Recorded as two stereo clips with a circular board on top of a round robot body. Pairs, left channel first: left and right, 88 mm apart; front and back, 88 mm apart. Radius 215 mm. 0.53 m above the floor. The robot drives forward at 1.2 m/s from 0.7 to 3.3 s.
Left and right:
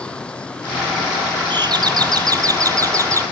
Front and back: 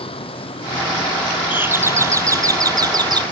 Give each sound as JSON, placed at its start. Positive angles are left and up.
{"t": 0.0, "sound": "a vehicle", "azimuth_deg": 10}
{"t": 1.5, "sound": "a doorbell", "azimuth_deg": -110}